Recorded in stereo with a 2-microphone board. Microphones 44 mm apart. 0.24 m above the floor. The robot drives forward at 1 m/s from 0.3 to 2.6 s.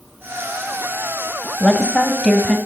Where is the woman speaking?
20° left (ahead or behind), 1.0 m; by 2.6 s 15° left (ahead or behind), 1.3 m.